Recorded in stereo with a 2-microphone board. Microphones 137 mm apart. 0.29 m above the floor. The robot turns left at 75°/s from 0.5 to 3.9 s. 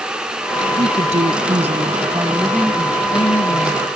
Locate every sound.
0.8 s a woman speaking: 50° right; by 3.9 s 80° left